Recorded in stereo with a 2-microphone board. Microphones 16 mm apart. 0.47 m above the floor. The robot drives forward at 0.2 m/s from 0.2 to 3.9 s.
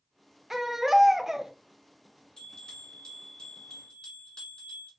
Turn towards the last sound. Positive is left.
turn(degrees=55)  # may be behind; listen again after turning